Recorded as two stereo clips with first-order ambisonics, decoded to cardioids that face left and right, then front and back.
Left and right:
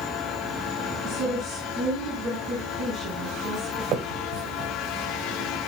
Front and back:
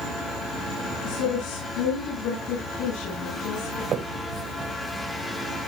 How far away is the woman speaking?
About 6 m.